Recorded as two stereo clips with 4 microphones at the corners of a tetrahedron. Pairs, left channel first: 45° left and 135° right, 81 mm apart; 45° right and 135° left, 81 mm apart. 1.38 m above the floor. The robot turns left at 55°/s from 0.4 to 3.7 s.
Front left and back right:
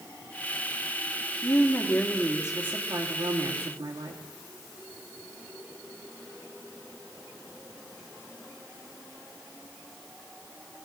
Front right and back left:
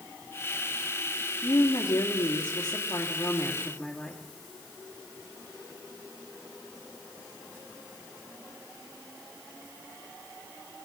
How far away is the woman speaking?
About 2 m.